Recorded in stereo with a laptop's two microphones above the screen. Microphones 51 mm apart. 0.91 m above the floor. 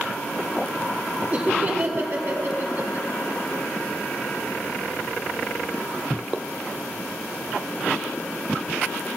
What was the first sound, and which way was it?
Laughter, 30° right (ahead or behind).